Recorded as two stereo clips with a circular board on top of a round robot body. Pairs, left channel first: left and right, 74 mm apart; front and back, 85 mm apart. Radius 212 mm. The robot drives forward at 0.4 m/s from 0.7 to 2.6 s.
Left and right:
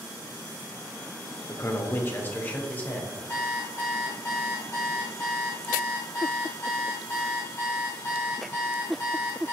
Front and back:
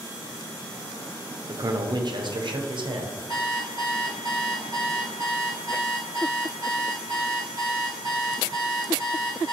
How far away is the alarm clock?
About 0.7 m.